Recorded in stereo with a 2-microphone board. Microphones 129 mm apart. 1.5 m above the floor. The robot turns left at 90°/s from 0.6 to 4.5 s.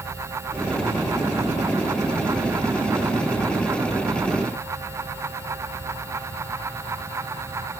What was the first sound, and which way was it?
Only background noise.